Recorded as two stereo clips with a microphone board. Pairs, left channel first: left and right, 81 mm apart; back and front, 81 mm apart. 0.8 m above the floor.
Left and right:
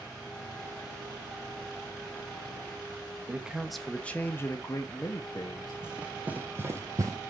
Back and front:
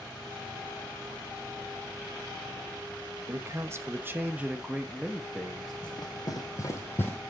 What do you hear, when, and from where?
3.3 s a man speaking: 25° right, 0.8 m; by 5.7 s 95° left, 1.2 m
5.8 s running footsteps: 165° right, 1.7 m; by 7.2 s 115° right, 1.3 m